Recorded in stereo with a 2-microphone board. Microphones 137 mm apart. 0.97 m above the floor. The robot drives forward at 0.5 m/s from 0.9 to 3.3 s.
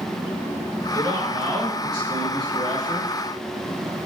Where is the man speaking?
30° right (ahead or behind), 3.5 m; by 3.1 s 45° right (ahead or behind), 2.5 m.